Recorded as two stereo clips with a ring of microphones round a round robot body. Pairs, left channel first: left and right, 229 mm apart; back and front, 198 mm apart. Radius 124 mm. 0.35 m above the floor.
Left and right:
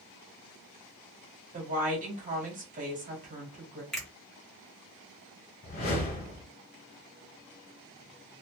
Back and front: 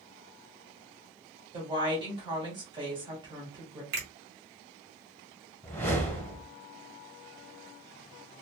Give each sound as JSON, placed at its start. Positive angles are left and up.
{"t": 1.5, "sound": "a woman speaking", "azimuth_deg": -55, "distance_m": 1.3}
{"t": 3.9, "sound": "a finger snap", "azimuth_deg": 0, "distance_m": 1.3}
{"t": 5.6, "sound": "a whoosh", "azimuth_deg": 105, "distance_m": 1.3}